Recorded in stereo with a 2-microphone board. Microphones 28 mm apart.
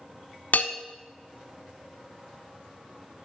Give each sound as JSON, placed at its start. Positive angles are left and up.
{"t": 0.5, "sound": "a bell", "side_deg": 70, "distance_m": 0.6}